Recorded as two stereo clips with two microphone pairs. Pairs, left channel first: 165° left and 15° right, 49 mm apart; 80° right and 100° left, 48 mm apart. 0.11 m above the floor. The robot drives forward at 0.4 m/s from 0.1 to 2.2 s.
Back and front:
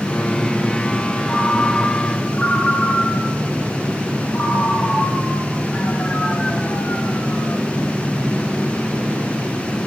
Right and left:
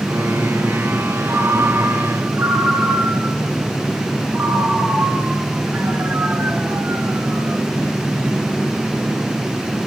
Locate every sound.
1.3 s a ringtone: 95° left, 1.6 m; by 7.6 s 115° left, 1.7 m